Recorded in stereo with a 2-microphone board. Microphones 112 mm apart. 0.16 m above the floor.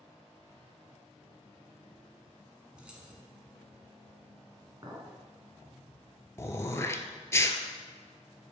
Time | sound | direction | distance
2.8 | keys jangling | 10° right (ahead or behind) | 1.2 m
4.8 | a clink | 35° right (ahead or behind) | 1.3 m
6.4 | throat clearing | 25° left (ahead or behind) | 0.5 m